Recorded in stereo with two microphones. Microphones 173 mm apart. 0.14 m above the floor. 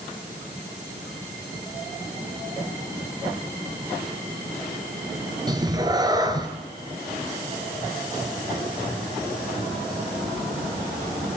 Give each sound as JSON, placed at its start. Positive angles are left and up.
{"t": 5.5, "sound": "a cat meowing", "side_deg": -25, "distance_m": 0.8}